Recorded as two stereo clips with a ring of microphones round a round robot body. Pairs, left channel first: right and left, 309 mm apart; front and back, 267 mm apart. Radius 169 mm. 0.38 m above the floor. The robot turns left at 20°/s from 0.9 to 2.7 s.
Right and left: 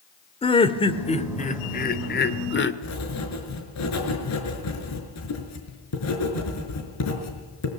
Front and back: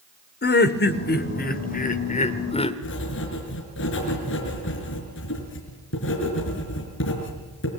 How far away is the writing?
About 5.5 m.